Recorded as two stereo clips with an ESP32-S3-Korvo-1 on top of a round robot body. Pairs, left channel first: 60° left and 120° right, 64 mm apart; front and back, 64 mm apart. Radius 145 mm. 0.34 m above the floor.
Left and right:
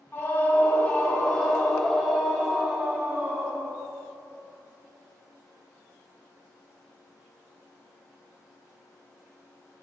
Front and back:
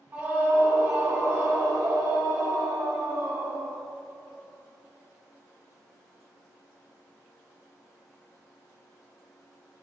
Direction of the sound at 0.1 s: 115° left.